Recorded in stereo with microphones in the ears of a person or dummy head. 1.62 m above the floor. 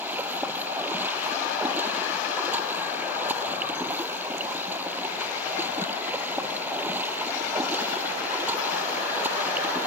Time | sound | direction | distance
0.0 | running water | 10° right (ahead or behind) | ?